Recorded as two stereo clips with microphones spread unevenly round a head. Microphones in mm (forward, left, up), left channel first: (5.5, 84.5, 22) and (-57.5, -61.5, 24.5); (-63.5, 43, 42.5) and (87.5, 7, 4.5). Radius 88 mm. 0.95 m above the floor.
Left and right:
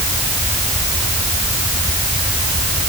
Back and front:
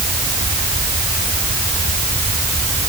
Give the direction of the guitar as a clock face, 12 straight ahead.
No guitar in this recording.